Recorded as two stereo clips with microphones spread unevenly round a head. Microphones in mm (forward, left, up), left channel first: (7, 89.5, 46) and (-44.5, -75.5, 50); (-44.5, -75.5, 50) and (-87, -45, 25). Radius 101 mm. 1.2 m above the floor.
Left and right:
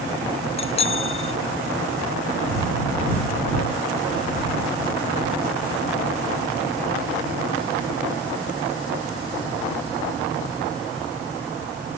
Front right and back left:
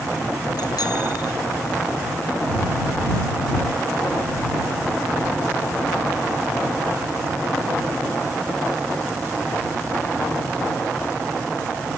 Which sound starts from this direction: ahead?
A bicycle bell, at 0.6 s.